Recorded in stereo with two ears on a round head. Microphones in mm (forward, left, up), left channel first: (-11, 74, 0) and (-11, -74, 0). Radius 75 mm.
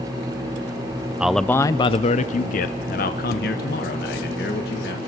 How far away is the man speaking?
About 0.5 m.